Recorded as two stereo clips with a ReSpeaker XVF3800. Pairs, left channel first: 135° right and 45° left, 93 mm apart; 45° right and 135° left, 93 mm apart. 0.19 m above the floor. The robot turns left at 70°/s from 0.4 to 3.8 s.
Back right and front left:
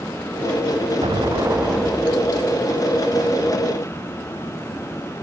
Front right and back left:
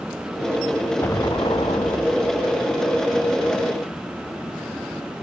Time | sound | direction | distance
1.0 | an explosion | 15° left | ?